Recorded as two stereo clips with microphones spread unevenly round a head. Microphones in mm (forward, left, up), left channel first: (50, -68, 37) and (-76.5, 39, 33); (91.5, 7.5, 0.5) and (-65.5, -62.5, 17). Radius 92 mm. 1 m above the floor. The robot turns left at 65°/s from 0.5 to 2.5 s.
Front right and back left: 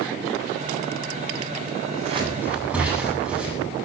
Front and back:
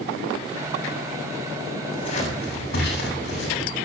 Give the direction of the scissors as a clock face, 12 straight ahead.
9 o'clock.